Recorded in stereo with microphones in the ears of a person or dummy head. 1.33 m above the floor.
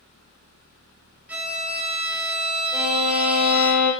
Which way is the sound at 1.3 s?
5° right (ahead or behind).